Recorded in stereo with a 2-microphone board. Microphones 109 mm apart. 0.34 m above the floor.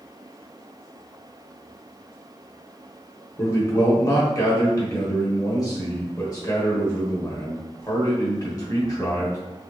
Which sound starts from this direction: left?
A man speaking, at 3.4 s.